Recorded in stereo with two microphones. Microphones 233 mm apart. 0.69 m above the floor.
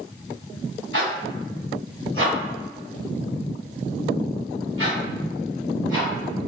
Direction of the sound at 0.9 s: 65° right (ahead or behind).